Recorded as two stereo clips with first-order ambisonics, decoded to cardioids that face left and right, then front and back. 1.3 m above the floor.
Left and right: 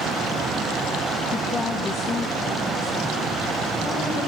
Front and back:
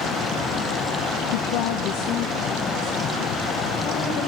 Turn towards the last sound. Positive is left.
turn(degrees=20)